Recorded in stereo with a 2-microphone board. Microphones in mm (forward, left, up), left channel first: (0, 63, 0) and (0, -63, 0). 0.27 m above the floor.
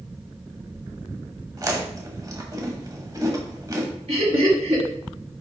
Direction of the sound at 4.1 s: 60° right (ahead or behind).